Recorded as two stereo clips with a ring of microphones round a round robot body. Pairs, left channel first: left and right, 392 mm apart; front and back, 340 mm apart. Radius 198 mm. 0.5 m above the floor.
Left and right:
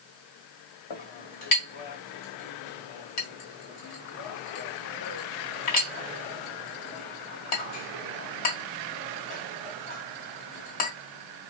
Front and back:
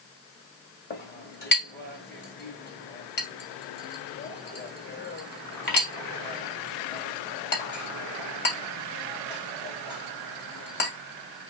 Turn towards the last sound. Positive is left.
turn(degrees=60)